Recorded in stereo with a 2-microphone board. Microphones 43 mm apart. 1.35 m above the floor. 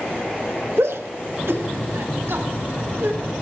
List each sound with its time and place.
0.8 s a shout: 85° right, 1.4 m; by 3.2 s 75° right (ahead or behind), 4 m